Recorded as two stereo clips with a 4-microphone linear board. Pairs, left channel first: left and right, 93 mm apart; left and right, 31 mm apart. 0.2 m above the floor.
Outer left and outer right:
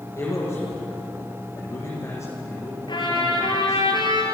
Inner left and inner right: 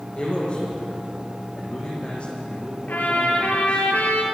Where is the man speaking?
30° left (ahead or behind), 8.5 m.